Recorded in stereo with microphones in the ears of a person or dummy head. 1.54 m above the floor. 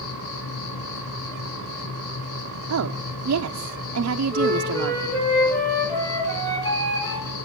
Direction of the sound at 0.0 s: 70° left (ahead or behind).